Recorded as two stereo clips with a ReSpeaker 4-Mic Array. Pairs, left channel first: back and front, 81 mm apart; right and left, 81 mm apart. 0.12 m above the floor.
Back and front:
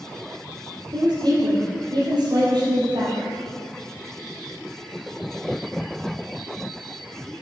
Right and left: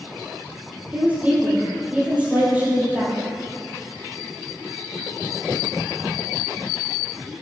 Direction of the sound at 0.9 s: 20° left.